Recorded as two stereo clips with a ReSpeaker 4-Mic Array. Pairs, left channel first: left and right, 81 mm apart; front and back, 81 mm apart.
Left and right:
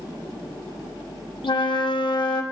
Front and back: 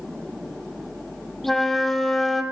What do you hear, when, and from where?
1.4 s a flute: 85° left, 0.7 m